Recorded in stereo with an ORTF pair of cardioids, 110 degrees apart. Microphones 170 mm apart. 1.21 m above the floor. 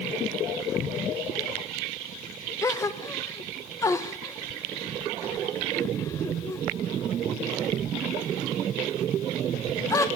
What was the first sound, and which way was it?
A gasp, 20° left.